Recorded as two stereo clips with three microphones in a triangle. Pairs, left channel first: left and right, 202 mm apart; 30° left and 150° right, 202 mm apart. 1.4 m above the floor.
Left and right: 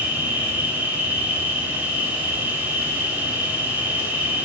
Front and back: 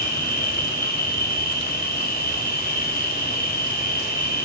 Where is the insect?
10° right, 2.5 m.